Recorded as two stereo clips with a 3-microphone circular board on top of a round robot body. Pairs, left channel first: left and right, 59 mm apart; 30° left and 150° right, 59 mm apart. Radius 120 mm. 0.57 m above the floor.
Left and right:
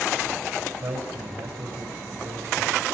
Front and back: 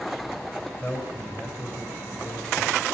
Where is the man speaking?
45° right, 3.5 m; by 2.9 s 60° right, 4 m.